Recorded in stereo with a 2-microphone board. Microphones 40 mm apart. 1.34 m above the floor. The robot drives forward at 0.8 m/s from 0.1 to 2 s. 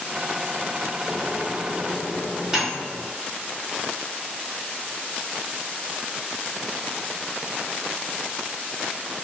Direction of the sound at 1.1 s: 10° right (ahead or behind).